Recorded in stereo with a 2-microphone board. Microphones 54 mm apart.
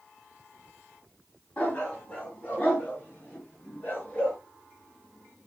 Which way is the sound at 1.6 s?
25° left (ahead or behind).